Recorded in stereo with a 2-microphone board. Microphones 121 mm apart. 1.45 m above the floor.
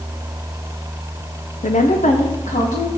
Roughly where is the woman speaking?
Left.